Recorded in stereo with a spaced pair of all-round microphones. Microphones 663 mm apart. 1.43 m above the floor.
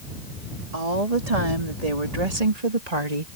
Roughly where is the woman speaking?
Right.